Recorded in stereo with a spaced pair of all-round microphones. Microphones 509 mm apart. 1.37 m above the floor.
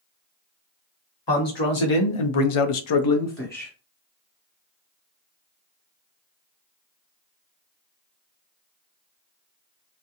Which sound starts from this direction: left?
A man speaking, at 1.3 s.